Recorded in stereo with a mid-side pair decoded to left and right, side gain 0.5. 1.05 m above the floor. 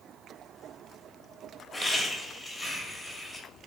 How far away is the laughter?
About 1.2 m.